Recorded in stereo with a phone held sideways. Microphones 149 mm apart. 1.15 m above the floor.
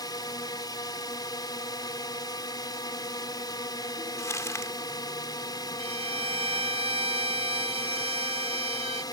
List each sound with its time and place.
0.0 s a drone: 30° left (ahead or behind)
4.2 s crumpling: 20° left (ahead or behind)
5.8 s a violin: 40° right (ahead or behind)